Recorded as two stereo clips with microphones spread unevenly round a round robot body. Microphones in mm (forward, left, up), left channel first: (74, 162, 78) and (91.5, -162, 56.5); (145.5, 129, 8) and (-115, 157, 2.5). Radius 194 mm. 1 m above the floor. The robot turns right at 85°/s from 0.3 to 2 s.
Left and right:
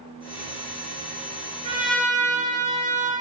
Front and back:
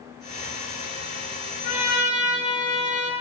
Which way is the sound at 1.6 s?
15° right.